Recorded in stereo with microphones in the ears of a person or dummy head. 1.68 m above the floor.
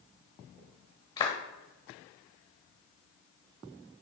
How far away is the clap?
About 1.3 m.